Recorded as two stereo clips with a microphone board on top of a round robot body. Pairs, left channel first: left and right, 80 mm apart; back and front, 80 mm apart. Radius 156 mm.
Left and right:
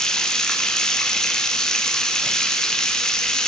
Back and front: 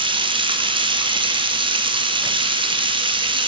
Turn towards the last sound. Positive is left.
turn(degrees=5)